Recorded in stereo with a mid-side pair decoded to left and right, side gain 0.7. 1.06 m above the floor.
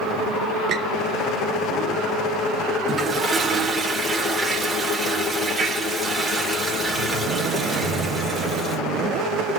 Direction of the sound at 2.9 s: 15° right.